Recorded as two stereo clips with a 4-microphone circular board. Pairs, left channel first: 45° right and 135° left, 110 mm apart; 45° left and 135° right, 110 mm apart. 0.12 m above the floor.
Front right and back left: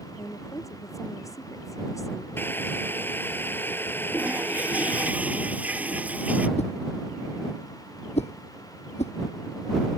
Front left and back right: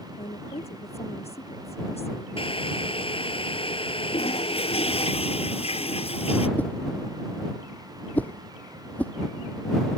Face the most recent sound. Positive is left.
turn(degrees=-30)